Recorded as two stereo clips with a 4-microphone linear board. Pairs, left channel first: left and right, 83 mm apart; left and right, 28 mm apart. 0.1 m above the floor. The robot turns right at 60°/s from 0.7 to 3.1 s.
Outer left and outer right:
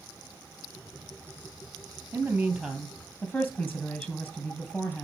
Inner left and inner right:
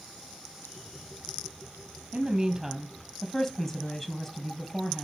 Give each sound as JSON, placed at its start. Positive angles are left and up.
{"t": 2.1, "sound": "a woman speaking", "azimuth_deg": -35, "distance_m": 2.5}